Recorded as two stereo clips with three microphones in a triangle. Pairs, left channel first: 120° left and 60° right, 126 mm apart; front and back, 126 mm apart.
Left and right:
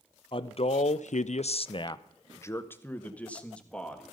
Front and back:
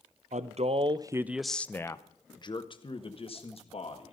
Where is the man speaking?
165° left, 0.7 m; by 4.1 s 35° left, 1.9 m.